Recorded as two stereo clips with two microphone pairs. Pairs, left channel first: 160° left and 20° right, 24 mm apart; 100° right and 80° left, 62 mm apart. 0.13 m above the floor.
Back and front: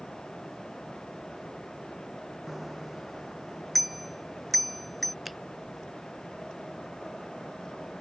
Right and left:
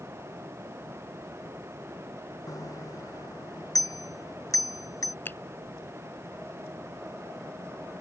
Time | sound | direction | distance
2.5 | a bicycle bell | 100° right | ?
5.2 | a finger snap | 105° right | ?